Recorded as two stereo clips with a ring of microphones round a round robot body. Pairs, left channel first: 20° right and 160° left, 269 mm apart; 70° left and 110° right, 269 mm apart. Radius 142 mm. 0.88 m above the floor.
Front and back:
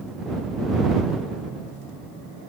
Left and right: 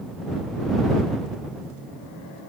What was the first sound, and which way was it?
Only background noise.